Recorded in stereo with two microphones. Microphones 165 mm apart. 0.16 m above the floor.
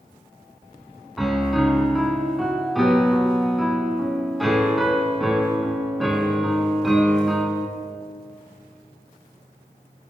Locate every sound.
1.2 s a piano: centre (ahead or behind), 0.7 m